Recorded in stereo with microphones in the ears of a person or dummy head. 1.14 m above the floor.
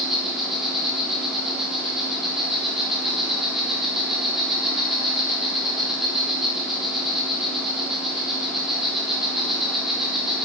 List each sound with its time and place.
0.0 s an insect: centre (ahead or behind), 4 m